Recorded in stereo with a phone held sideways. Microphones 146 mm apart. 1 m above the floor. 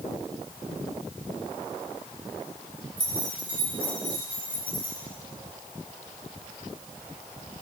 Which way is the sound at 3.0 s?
70° left (ahead or behind).